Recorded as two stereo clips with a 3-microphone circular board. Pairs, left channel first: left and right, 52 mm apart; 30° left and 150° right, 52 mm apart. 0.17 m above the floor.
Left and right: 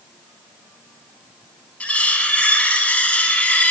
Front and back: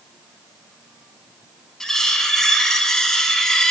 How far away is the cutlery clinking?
About 0.7 m.